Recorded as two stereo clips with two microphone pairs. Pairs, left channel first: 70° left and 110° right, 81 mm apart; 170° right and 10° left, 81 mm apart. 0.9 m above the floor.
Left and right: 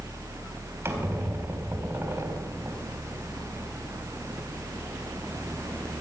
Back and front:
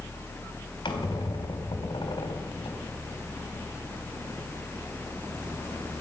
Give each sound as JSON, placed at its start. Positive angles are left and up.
{"t": 0.8, "sound": "a squeak", "azimuth_deg": -170, "distance_m": 3.0}